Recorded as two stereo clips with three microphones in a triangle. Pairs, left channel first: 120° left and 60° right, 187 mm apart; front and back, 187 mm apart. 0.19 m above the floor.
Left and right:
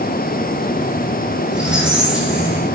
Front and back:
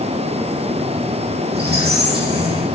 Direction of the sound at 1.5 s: 145° right.